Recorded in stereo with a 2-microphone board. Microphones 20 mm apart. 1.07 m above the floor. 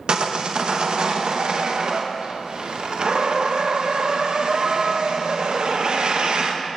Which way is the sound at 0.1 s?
55° right (ahead or behind).